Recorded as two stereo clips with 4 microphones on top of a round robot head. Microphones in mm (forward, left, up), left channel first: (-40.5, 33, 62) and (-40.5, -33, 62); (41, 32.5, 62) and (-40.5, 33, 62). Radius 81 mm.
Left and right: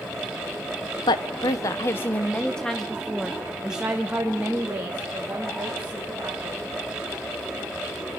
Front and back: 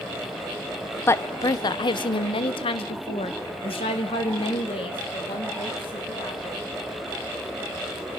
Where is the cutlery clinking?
No cutlery clinking in this recording.